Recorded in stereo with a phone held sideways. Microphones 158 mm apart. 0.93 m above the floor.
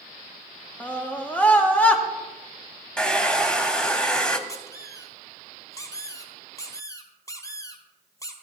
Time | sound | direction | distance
0.8 | a scream | 10° left (ahead or behind) | 1.5 m
3.0 | a hair dryer | 5° left (ahead or behind) | 0.9 m
4.5 | a squeak | 20° left (ahead or behind) | 1.4 m